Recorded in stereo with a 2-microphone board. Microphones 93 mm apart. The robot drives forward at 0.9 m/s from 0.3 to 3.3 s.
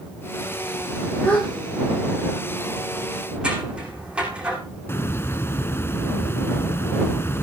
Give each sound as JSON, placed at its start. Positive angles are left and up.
{"t": 1.2, "sound": "a gasp", "side_deg": 15, "distance_m": 8.5}
{"t": 3.4, "sound": "scissors", "side_deg": -10, "distance_m": 8.0}
{"t": 4.9, "sound": "a hiss", "side_deg": 25, "distance_m": 1.1}